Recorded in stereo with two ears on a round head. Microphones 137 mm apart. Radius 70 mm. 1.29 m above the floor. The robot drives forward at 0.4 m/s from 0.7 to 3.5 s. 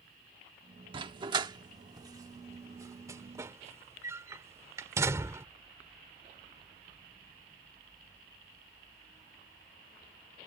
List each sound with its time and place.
0.9 s a dog barking: 35° right (ahead or behind); by 5.5 s 20° right (ahead or behind)